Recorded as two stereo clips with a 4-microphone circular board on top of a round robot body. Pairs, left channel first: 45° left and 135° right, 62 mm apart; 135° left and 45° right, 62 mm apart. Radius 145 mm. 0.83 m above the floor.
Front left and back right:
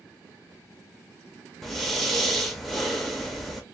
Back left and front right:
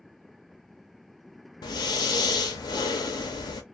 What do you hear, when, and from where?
1.6 s breathing: 130° left, 0.6 m